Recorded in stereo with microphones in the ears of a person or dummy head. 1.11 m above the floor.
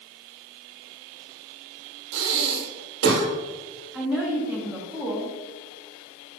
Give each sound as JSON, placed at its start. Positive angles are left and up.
{"t": 2.1, "sound": "breathing", "side_deg": -65, "distance_m": 1.6}
{"t": 3.9, "sound": "a woman speaking", "side_deg": -20, "distance_m": 1.4}